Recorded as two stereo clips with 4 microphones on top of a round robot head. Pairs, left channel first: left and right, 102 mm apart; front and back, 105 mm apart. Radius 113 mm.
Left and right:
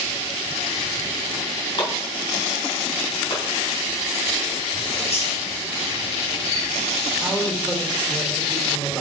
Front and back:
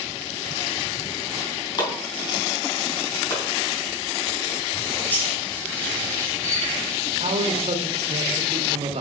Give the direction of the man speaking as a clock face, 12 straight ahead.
6 o'clock.